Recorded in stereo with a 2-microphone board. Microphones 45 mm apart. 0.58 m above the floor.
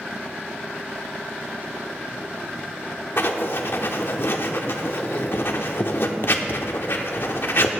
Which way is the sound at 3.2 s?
55° left (ahead or behind).